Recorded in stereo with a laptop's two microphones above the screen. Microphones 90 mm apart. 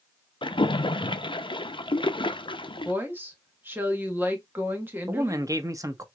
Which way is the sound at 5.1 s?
35° right (ahead or behind).